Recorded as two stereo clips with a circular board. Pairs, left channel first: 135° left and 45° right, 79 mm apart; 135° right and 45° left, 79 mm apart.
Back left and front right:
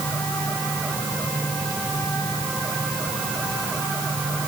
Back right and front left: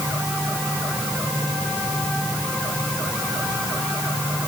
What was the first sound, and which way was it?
Only background noise.